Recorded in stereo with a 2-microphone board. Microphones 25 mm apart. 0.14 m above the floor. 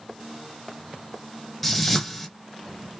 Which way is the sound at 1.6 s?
5° left (ahead or behind).